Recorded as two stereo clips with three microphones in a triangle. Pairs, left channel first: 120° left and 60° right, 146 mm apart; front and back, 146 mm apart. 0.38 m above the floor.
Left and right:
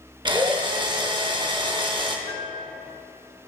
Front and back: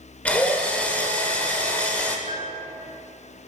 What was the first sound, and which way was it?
A drill, 70° right.